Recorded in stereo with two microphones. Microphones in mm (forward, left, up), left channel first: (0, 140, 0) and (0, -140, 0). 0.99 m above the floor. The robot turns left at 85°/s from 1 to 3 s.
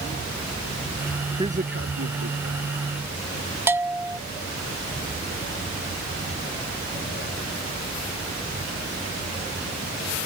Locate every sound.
1.4 s a man speaking: 15° right (ahead or behind); by 2.7 s 55° right (ahead or behind)
3.7 s a bell: 10° right (ahead or behind)